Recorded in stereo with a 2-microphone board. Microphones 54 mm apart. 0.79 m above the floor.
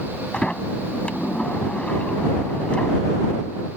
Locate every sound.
0.3 s a sliding door: 20° left (ahead or behind)